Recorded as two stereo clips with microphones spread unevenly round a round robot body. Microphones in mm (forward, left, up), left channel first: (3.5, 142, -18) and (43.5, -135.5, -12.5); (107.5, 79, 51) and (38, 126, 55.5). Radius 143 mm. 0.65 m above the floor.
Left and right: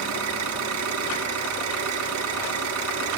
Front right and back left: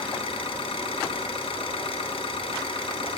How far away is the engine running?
About 3.5 m.